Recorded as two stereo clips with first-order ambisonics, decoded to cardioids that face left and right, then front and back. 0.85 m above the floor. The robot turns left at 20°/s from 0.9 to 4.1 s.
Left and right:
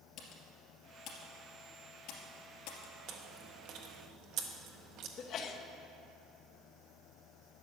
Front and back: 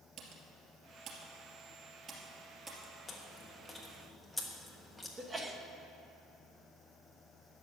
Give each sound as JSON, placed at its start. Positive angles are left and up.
{"t": 0.2, "sound": "typing on a keyboard", "azimuth_deg": 140, "distance_m": 2.5}
{"t": 3.1, "sound": "chewing", "azimuth_deg": -70, "distance_m": 1.2}
{"t": 5.2, "sound": "a sneeze", "azimuth_deg": 110, "distance_m": 1.0}